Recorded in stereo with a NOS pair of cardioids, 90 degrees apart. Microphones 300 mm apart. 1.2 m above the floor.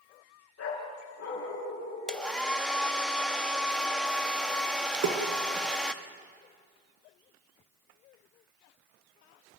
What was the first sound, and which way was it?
A dog barking, 55° left.